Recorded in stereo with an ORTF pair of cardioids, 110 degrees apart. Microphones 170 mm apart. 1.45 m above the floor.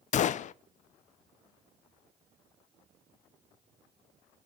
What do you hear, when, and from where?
0.1 s a gunshot: 50° left, 0.5 m